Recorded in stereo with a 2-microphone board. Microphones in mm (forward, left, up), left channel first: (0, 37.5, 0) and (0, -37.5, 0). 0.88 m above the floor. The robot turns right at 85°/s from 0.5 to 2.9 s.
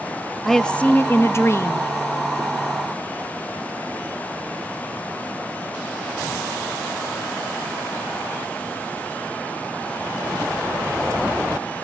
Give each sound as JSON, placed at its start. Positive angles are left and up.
{"t": 0.5, "sound": "a woman speaking", "azimuth_deg": 5, "distance_m": 0.5}